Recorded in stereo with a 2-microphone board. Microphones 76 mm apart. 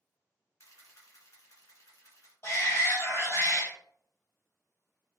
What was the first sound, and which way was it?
A camera shutter, 45° left (ahead or behind).